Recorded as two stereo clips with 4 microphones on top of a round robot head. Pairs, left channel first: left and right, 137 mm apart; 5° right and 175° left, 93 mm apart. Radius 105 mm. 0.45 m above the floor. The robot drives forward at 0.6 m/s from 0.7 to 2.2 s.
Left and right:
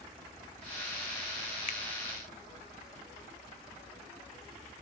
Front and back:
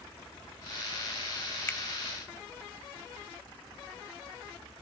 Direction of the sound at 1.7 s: 60° left.